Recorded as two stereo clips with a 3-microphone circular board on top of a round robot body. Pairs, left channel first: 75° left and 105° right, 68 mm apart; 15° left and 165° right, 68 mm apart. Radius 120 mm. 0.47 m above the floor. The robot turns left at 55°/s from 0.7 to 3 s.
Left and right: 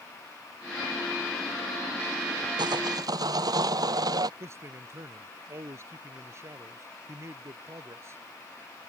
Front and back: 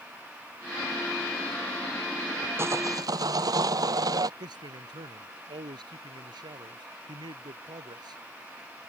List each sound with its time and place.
2.6 s sawing: 110° right; by 4.3 s 130° right
4.4 s a man speaking: 155° right